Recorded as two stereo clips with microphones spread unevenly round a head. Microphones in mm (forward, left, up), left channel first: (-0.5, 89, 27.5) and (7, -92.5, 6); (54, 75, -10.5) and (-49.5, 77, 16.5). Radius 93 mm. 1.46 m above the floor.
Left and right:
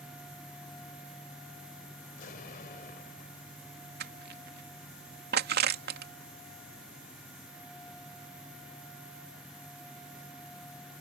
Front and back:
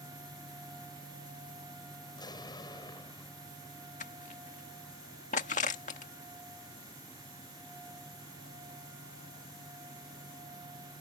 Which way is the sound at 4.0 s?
50° right.